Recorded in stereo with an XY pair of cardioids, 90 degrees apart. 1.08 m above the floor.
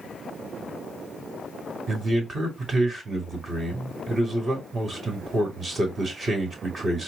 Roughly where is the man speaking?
Ahead right.